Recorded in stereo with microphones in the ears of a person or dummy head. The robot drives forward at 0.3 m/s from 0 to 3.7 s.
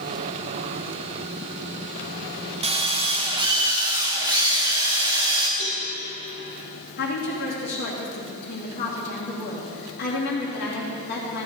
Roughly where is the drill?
Right.